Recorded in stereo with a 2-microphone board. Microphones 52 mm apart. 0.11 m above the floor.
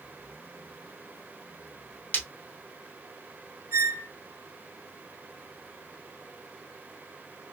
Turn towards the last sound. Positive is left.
turn(degrees=-60)  # may be behind; listen again after turning